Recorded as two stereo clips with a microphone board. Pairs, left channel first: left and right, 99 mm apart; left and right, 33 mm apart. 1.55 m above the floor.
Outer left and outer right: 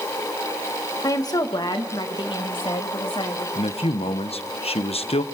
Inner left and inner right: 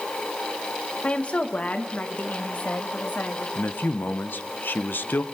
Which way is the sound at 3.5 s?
80° left.